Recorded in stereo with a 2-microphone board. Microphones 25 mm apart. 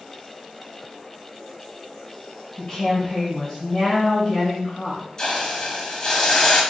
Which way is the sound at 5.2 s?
30° left (ahead or behind).